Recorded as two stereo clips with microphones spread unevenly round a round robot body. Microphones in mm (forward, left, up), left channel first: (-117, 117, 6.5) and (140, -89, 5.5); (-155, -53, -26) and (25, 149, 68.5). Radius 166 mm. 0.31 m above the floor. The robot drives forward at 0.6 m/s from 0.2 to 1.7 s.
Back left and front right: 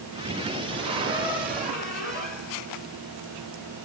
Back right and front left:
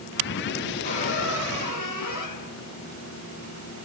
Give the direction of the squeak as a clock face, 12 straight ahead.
4 o'clock.